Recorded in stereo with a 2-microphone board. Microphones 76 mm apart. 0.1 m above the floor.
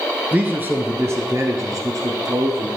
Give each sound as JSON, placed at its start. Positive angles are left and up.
{"t": 0.3, "sound": "a man speaking", "side_deg": -20, "distance_m": 1.2}